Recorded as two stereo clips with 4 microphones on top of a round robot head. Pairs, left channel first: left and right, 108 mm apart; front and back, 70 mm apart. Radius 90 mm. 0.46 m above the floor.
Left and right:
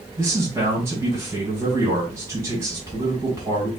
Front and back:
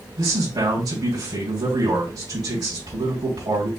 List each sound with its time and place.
0.2 s a man speaking: 155° right, 2.5 m